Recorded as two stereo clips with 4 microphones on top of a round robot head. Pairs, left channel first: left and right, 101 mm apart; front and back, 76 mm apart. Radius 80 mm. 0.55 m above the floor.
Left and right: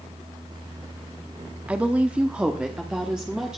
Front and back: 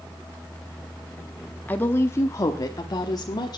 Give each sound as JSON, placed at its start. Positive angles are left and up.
{"t": 1.7, "sound": "a woman speaking", "azimuth_deg": -30, "distance_m": 0.9}